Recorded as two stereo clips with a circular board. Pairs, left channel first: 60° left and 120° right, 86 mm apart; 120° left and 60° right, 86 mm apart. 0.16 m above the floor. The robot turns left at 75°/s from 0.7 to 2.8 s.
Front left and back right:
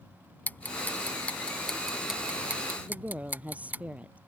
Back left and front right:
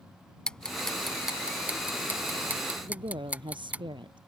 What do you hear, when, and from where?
0.5 s ticking: 60° left; by 3.8 s 100° right
2.8 s a woman speaking: 45° right